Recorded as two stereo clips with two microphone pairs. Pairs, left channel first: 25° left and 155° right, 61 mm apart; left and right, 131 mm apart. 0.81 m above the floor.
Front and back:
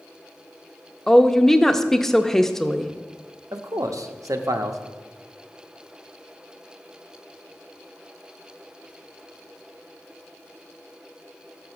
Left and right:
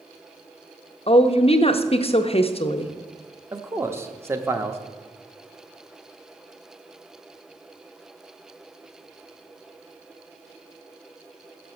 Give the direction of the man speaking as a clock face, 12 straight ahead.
5 o'clock.